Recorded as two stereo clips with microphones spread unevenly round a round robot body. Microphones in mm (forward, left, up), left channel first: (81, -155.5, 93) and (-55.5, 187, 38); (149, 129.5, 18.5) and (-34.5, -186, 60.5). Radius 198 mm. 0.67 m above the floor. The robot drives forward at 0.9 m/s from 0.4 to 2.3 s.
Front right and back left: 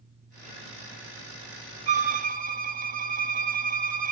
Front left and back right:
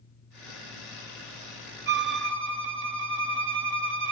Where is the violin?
175° right, 0.6 m.